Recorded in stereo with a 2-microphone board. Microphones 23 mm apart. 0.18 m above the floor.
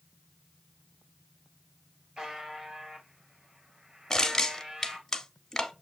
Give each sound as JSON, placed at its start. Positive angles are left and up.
{"t": 2.2, "sound": "a buzzer", "side_deg": -40, "distance_m": 1.2}
{"t": 4.1, "sound": "crushing", "side_deg": 25, "distance_m": 0.7}